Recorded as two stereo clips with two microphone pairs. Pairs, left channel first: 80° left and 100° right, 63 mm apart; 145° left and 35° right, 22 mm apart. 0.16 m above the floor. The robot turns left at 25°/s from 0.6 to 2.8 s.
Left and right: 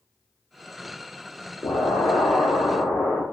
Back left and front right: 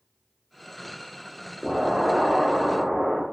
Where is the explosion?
65° left, 1.3 m; by 3.2 s 35° left, 1.3 m.